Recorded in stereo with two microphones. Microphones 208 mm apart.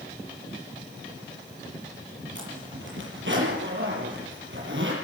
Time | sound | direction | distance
2.4 | a zipper | 65° right (ahead or behind) | 7 m